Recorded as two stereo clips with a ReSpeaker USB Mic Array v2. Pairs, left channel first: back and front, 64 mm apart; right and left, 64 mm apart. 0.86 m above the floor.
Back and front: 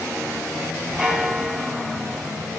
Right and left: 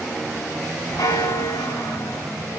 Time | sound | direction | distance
1.0 | a bell | 75° right | 3.5 m